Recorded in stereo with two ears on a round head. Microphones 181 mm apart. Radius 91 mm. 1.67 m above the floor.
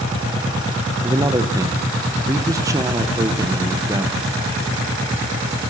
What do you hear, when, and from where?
1.0 s a man speaking: 15° right (ahead or behind), 0.8 m